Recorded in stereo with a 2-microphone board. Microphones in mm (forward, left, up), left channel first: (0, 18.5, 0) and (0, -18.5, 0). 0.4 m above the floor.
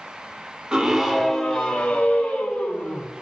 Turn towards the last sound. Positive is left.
turn(degrees=45)  # may be behind; listen again after turning